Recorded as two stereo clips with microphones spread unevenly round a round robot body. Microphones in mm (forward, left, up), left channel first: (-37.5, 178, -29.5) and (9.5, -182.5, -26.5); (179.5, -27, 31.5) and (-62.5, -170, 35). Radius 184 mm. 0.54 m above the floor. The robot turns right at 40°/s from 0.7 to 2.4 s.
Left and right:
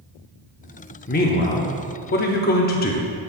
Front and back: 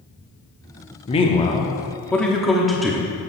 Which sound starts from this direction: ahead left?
A man speaking, at 1.1 s.